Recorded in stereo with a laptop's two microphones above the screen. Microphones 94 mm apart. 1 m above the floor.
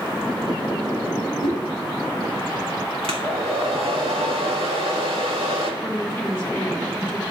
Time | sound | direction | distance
1.4 | a whoosh | 85° right | 6 m
3.0 | a hair dryer | 80° right | 1.6 m
5.8 | a woman speaking | 20° left (ahead or behind) | 2 m